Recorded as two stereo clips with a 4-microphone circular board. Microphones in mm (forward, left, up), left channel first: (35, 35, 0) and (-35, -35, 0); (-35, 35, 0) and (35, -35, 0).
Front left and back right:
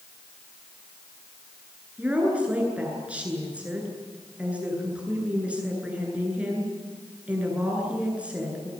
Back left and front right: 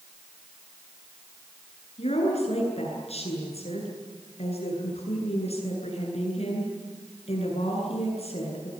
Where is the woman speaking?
145° left, 9.5 m.